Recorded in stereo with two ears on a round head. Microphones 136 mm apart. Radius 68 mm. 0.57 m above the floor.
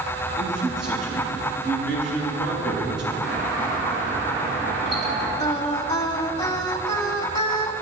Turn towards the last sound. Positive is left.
turn(degrees=25)  # may be behind; listen again after turning